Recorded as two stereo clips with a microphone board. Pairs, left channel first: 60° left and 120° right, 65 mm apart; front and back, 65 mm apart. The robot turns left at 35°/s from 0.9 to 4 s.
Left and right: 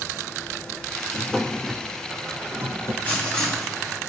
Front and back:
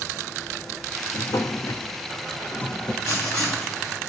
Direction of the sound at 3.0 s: 5° right.